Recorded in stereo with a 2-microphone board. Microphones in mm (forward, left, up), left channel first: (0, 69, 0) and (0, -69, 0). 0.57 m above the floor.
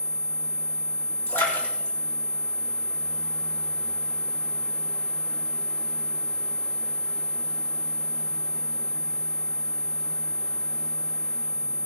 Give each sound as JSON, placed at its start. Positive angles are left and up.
{"t": 1.3, "sound": "a splash", "side_deg": 20, "distance_m": 5.5}